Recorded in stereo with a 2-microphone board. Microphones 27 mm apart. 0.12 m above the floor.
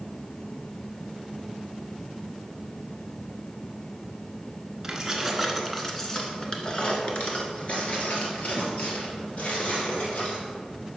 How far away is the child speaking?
No child speaking in this recording.